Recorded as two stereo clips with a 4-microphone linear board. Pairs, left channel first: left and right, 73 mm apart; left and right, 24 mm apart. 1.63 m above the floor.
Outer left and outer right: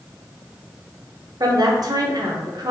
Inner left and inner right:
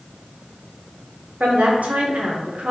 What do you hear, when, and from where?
1.4 s a woman speaking: 60° right (ahead or behind), 0.9 m